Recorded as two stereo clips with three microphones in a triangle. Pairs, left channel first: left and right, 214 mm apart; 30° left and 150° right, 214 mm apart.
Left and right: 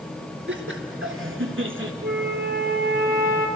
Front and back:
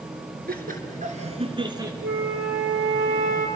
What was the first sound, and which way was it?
Laughter, 105° right.